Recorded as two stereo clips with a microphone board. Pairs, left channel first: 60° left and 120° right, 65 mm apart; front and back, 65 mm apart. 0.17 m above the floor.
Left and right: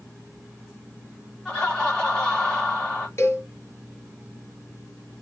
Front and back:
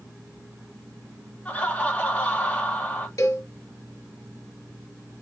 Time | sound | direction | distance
1.4 | laughter | straight ahead | 1.7 m
3.2 | a cowbell | 20° left | 1.1 m